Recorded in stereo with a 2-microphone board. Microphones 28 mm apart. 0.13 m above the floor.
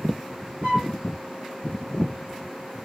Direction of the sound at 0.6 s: 50° right (ahead or behind).